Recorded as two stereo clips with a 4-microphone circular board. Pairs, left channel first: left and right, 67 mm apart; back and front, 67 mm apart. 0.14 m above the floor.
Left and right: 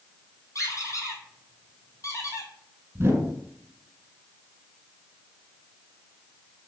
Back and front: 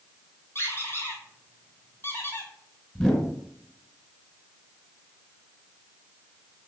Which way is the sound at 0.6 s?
125° left.